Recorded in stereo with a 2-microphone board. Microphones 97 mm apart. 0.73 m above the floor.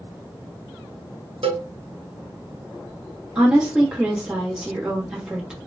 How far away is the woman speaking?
About 1.1 m.